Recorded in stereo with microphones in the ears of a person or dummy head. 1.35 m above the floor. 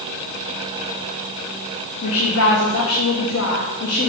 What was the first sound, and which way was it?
A woman speaking, 75° left (ahead or behind).